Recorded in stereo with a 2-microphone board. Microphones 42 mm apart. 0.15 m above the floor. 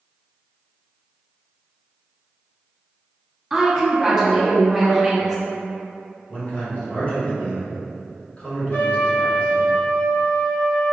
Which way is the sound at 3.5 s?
5° right (ahead or behind).